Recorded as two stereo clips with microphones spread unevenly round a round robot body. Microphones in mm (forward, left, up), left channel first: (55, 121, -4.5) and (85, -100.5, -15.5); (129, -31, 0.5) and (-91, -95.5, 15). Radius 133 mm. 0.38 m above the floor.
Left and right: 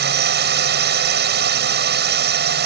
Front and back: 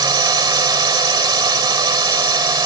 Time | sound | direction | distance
0.0 | a drone | 95° right | ?